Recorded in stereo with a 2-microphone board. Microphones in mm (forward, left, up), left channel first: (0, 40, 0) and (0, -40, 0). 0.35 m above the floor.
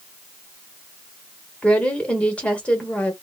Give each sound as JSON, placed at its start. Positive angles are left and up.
{"t": 1.6, "sound": "a woman speaking", "side_deg": 15, "distance_m": 0.9}